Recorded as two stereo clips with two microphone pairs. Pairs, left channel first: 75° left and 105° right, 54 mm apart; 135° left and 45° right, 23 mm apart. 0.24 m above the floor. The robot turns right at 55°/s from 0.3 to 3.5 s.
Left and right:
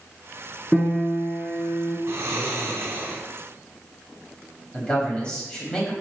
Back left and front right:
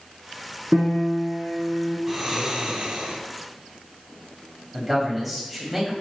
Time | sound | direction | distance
0.7 | a piano | 15° right | 0.9 m
2.1 | snoring | 120° right | 0.7 m
4.7 | a man speaking | 40° left | 1.2 m